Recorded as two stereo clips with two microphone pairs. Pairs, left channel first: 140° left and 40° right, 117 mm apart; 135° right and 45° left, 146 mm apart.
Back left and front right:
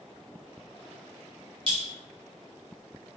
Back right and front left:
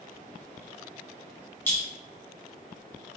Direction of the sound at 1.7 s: 60° right.